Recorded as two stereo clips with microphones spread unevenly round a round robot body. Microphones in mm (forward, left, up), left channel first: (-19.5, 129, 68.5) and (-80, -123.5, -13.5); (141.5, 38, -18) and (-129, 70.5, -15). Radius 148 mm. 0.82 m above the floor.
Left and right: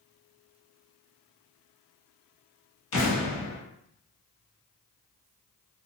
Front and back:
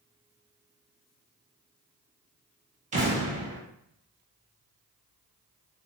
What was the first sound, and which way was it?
An explosion, 105° left.